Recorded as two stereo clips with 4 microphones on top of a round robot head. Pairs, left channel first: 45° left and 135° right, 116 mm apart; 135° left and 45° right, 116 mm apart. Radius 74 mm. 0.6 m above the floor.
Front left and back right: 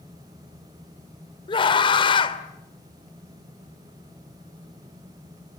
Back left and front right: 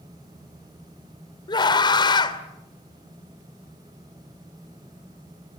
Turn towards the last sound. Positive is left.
turn(degrees=85)